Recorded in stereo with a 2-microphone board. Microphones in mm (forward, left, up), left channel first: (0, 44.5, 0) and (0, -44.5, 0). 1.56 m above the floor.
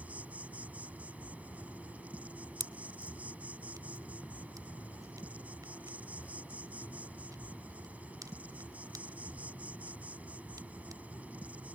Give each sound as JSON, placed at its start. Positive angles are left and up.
{"t": 0.0, "sound": "an insect", "side_deg": -15}
{"t": 2.6, "sound": "a pop", "side_deg": -45}